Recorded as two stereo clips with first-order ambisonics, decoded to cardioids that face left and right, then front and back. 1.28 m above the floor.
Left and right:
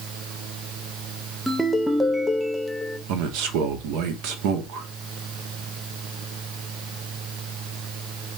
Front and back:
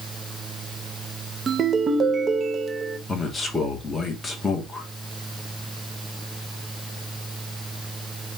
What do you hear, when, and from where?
1.5 s a ringtone: 170° right, 0.5 m
3.1 s a man speaking: 80° right, 1.1 m